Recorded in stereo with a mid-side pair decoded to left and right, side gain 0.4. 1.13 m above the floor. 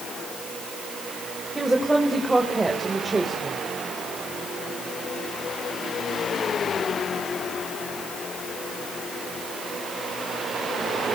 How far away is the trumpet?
I don't hear a trumpet.